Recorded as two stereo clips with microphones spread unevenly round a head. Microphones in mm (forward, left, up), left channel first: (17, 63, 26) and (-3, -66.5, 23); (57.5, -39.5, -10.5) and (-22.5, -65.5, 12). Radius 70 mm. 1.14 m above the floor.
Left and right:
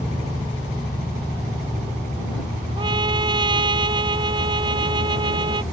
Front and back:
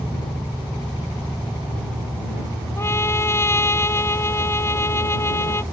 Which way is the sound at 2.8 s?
40° right.